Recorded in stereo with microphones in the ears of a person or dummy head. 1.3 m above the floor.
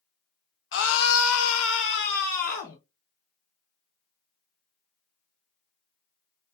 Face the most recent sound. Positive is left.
turn(degrees=40)  # may be behind; listen again after turning